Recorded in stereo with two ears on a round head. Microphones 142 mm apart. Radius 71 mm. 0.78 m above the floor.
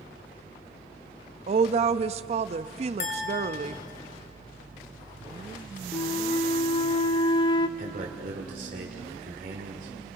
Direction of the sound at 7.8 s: 60° right (ahead or behind).